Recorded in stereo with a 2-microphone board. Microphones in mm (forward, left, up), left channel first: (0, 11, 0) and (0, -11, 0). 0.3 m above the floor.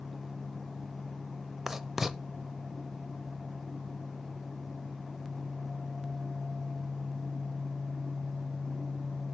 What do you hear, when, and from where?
1.7 s writing: 15° right (ahead or behind), 0.5 m